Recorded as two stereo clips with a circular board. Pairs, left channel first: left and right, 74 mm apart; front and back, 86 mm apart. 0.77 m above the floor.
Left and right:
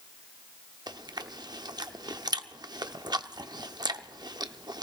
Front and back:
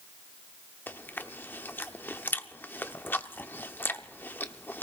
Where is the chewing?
65° right, 0.6 m.